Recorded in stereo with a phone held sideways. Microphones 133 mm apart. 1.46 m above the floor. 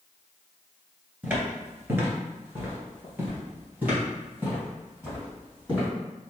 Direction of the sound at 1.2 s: 15° right (ahead or behind).